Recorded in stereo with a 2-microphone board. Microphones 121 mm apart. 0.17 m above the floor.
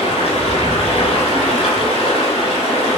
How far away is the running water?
About 0.8 m.